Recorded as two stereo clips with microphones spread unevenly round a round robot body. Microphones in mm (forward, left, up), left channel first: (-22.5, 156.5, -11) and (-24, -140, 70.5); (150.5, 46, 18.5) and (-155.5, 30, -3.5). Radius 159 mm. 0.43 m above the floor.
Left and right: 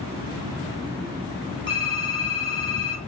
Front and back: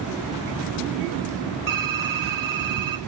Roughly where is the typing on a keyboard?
Behind right.